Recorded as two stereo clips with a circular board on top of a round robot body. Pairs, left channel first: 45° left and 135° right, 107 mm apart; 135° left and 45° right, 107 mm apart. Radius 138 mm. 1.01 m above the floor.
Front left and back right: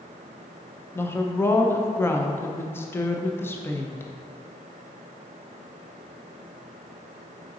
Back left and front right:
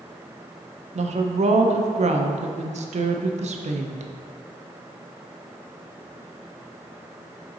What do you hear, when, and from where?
0.9 s a woman speaking: 25° right, 0.6 m